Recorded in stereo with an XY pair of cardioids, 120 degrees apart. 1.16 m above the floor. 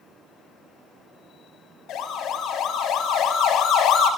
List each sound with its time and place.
1.9 s a siren: 65° left, 6.5 m